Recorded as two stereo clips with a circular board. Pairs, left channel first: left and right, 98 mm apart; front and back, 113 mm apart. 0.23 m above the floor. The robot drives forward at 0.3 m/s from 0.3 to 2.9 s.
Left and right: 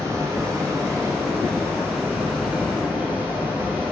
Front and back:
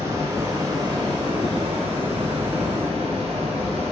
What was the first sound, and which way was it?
Running water, 130° right.